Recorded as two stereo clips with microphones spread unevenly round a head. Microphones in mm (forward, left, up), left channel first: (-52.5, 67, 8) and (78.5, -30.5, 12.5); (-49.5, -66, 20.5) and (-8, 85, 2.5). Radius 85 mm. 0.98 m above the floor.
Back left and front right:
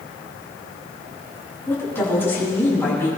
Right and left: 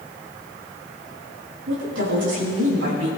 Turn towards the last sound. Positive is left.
turn(degrees=65)